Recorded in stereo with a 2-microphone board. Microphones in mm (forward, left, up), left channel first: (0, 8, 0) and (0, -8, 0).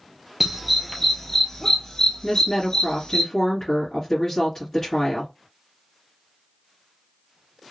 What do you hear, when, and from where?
0.4 s a dog barking: 10° right (ahead or behind), 1.1 m; by 3.2 s 50° left (ahead or behind), 2 m
2.2 s a woman speaking: 20° left (ahead or behind), 2.5 m